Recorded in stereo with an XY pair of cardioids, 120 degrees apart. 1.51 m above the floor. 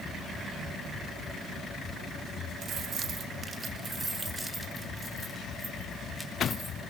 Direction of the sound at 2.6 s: 60° right.